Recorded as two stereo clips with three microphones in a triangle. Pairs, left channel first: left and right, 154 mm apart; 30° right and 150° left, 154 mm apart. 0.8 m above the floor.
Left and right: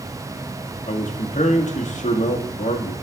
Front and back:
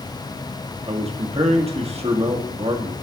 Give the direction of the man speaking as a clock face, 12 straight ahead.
8 o'clock.